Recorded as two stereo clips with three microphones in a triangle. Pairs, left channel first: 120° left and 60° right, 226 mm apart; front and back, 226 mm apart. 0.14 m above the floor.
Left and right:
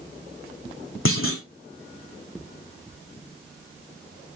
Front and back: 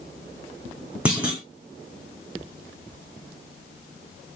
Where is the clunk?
95° left, 3 m.